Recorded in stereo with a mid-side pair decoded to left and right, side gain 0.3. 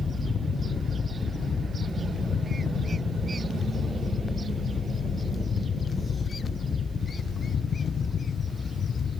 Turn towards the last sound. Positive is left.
turn(degrees=60)